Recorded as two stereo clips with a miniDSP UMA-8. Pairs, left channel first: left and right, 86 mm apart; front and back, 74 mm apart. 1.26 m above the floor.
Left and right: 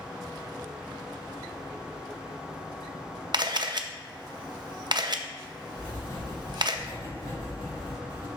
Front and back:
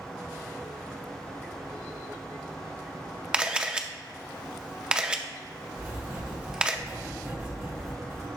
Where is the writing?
125° left, 3 m.